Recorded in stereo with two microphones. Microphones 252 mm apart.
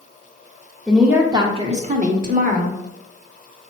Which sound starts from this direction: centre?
A woman speaking, at 0.9 s.